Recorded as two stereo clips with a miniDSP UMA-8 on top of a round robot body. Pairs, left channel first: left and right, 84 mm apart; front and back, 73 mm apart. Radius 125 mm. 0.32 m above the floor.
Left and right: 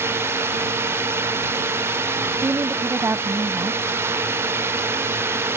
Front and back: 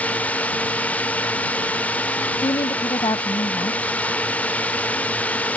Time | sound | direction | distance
0.0 | a drone | 55° right | ?
2.4 | a woman speaking | 25° right | ?